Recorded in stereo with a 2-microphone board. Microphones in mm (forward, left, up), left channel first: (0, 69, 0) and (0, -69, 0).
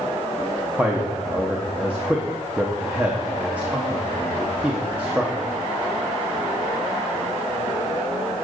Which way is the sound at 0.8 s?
10° right (ahead or behind).